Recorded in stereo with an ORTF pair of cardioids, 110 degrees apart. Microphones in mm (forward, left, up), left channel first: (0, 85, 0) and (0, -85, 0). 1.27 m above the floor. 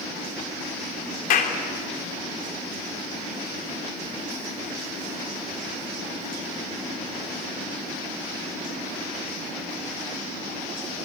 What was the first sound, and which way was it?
A clap, 55° left.